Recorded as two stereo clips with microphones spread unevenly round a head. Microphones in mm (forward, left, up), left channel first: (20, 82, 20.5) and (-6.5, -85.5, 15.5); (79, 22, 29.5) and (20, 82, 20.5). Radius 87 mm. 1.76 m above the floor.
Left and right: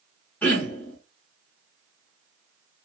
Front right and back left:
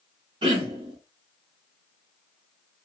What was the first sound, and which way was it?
Throat clearing, 160° left.